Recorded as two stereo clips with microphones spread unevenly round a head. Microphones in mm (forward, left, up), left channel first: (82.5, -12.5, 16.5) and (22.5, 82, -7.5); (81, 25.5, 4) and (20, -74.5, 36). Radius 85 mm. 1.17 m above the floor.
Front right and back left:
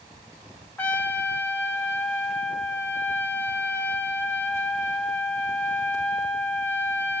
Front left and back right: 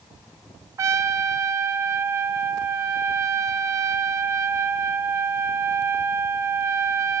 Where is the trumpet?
110° right, 0.6 m.